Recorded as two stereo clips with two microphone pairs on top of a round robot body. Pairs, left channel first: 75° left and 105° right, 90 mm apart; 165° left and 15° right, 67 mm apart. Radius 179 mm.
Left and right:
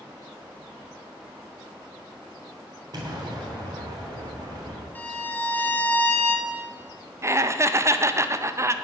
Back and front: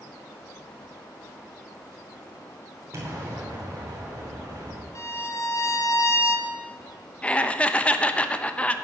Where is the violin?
140° left, 1.5 m.